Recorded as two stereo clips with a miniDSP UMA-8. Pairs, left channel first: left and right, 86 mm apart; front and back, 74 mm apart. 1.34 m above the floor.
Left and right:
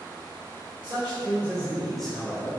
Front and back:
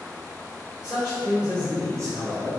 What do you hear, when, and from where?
0.8 s a man speaking: 95° right, 1.3 m; by 2.5 s 140° left, 0.9 m